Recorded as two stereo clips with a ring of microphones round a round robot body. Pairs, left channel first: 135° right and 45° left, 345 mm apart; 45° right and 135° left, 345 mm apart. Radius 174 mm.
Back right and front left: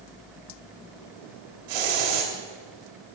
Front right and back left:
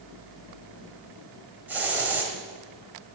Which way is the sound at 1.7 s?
50° left.